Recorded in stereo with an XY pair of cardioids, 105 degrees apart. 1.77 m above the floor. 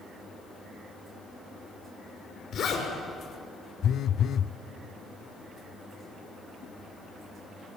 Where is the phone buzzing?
60° left, 0.5 m.